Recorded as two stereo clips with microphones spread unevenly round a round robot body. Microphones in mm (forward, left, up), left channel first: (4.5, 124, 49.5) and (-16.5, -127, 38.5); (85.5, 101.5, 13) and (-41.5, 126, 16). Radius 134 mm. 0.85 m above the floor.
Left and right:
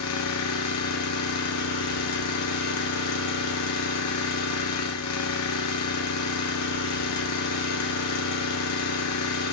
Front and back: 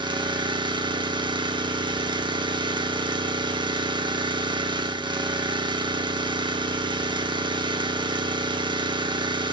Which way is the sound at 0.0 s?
115° left.